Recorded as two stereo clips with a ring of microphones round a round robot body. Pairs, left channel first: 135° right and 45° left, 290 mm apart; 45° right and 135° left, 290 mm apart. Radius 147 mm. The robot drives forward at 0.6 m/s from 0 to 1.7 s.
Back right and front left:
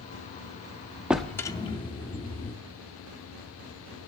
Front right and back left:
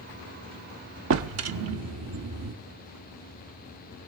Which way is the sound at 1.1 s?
130° left.